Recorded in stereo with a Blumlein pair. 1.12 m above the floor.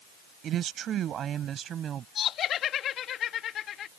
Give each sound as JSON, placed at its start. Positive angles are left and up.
{"t": 0.4, "sound": "a woman speaking", "azimuth_deg": -30}
{"t": 2.1, "sound": "laughter", "azimuth_deg": 30}